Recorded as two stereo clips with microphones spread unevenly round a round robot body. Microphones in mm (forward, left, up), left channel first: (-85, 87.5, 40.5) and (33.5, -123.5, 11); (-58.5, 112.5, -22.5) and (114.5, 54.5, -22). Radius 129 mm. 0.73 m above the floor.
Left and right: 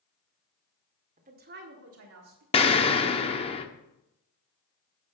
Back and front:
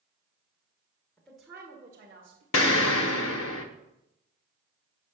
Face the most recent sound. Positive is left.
turn(degrees=-170)